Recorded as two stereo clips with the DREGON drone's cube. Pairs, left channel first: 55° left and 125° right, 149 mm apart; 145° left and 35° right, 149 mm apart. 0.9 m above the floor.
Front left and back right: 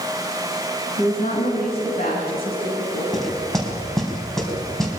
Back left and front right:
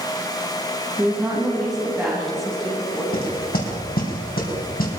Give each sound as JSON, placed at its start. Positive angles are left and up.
{"t": 1.0, "sound": "a woman speaking", "azimuth_deg": 45, "distance_m": 7.5}
{"t": 3.1, "sound": "knocking", "azimuth_deg": 145, "distance_m": 4.5}